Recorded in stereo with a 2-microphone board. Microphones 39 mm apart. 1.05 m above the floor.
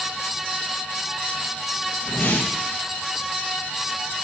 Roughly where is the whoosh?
Left.